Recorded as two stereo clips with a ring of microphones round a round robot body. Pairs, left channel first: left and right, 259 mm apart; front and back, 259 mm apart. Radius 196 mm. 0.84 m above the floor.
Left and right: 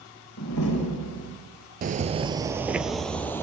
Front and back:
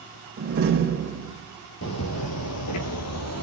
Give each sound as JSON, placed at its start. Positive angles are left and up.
{"t": 0.4, "sound": "a door slam", "azimuth_deg": 140, "distance_m": 2.5}
{"t": 1.8, "sound": "footsteps", "azimuth_deg": -40, "distance_m": 1.2}